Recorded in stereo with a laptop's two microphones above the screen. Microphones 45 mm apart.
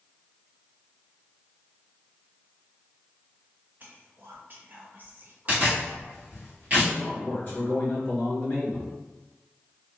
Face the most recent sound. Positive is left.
turn(degrees=40)  # may be behind; listen again after turning